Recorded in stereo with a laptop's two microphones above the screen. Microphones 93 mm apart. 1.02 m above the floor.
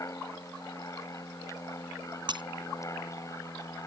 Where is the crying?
No crying in this recording.